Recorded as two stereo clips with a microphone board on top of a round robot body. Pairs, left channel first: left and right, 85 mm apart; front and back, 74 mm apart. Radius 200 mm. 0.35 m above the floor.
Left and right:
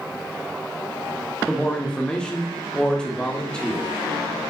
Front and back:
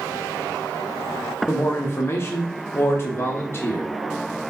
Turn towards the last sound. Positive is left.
turn(degrees=20)